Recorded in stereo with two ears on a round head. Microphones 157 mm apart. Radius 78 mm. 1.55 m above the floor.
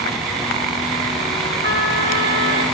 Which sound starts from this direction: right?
A trumpet, at 1.6 s.